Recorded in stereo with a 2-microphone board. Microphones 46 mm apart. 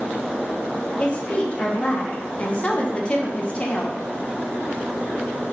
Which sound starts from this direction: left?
A woman speaking, at 1.0 s.